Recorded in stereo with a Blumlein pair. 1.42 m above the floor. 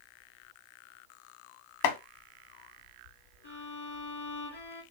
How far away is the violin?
About 1.6 m.